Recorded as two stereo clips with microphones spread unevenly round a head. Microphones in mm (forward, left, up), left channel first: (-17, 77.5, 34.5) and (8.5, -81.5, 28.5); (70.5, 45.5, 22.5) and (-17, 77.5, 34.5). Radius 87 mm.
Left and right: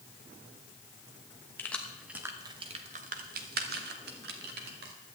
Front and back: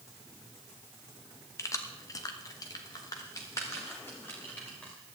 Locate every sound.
1.6 s keys jangling: 30° left, 1.0 m; by 4.9 s 105° right, 2.0 m